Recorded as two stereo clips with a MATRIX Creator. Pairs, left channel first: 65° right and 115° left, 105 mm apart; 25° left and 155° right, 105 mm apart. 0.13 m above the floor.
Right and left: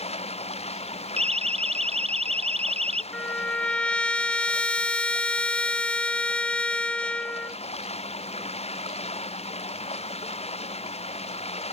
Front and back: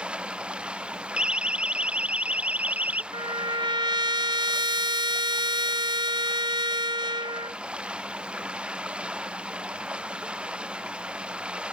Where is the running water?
75° right.